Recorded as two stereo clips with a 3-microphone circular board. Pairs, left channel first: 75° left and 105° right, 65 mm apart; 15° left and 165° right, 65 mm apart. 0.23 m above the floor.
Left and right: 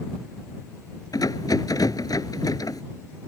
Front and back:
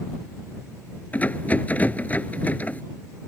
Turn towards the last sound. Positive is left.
turn(degrees=80)